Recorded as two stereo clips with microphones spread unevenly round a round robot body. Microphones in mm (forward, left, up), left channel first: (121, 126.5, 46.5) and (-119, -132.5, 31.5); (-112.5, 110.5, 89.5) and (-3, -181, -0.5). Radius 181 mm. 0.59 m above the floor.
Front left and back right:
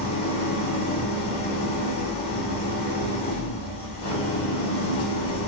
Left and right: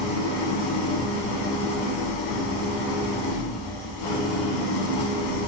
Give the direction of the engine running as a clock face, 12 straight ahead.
9 o'clock.